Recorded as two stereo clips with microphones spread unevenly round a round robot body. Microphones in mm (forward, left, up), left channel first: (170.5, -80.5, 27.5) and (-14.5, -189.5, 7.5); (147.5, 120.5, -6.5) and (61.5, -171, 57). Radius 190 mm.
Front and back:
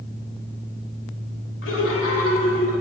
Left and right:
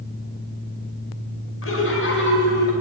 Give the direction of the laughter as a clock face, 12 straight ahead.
10 o'clock.